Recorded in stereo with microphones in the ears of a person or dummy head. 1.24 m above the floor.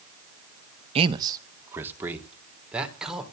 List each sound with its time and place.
0.9 s a man speaking: 30° right (ahead or behind), 1.1 m; by 3.2 s 5° right (ahead or behind), 3.5 m